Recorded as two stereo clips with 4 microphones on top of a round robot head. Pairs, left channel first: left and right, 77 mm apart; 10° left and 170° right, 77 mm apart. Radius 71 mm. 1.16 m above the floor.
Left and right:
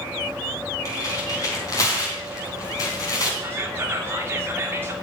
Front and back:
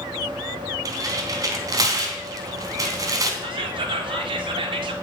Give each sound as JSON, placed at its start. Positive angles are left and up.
{"t": 0.8, "sound": "tearing paper", "azimuth_deg": 150, "distance_m": 3.5}
{"t": 3.4, "sound": "whispering", "azimuth_deg": -160, "distance_m": 3.0}